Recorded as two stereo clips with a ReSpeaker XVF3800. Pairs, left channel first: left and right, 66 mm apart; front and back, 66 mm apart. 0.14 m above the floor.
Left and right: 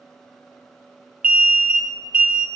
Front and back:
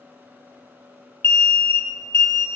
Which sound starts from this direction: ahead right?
An alarm, at 1.2 s.